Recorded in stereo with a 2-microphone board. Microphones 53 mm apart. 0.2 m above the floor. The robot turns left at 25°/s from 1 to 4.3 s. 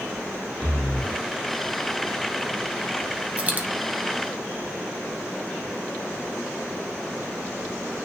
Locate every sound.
0.6 s breathing: 10° left (ahead or behind), 5 m; by 1.2 s 5° left (ahead or behind), 5 m
3.4 s a dropped coin: 25° right (ahead or behind), 1.5 m; by 3.7 s 30° right (ahead or behind), 1.5 m